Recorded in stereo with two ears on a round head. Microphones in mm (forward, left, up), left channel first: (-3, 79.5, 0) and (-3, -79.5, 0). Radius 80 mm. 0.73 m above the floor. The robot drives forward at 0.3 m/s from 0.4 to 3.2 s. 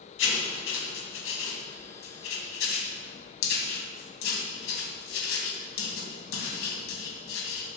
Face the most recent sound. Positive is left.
turn(degrees=85)